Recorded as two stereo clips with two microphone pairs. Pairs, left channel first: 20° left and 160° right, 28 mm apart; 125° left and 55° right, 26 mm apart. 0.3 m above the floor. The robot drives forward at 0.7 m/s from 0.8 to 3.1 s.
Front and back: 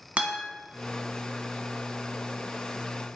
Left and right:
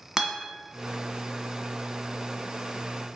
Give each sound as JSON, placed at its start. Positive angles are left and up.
{"t": 0.2, "sound": "a guitar", "azimuth_deg": -130, "distance_m": 1.1}